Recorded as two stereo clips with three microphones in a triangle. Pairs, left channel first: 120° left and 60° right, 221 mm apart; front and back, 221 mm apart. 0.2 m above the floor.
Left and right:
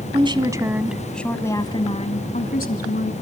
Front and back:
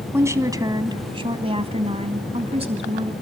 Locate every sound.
0.1 s a woman speaking: 110° right, 1.5 m; by 3.1 s 125° left, 1.9 m